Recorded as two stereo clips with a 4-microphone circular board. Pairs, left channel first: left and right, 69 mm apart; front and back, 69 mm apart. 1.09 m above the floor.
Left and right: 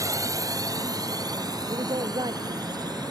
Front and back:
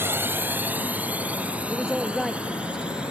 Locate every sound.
0.0 s a drone: 125° right; by 3.1 s 105° right
1.7 s a woman speaking: 90° right